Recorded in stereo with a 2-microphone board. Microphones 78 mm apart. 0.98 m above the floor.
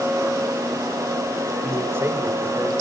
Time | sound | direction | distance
1.6 | a man speaking | 25° right (ahead or behind) | 3.5 m